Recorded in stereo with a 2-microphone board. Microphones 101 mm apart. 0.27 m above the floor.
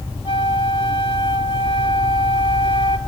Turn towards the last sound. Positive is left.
turn(degrees=60)  # may be behind; listen again after turning